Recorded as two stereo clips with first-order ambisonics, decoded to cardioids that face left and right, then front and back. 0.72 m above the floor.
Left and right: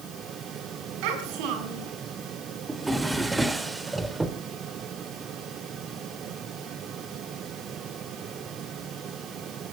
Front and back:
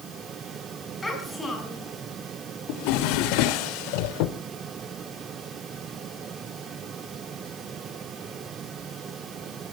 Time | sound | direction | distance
1.0 | a child speaking | 80° right | 5.5 m
2.7 | a drawer | 10° right | 1.0 m